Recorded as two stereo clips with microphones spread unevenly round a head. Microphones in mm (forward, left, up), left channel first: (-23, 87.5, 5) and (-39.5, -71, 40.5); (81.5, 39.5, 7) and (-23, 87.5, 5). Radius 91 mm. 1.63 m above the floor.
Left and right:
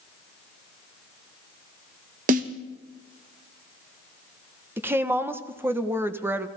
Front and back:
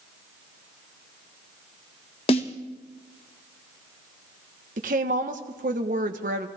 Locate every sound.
2.3 s a snare drum: 70° right, 1.1 m
4.8 s a woman speaking: 170° right, 1.3 m